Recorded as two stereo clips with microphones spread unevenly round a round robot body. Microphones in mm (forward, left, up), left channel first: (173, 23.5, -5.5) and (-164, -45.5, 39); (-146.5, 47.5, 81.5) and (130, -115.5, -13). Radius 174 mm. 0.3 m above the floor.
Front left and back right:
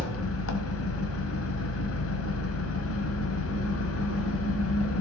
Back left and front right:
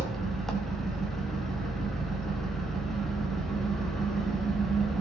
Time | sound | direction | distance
0.0 | an engine running | 50° left | 1.3 m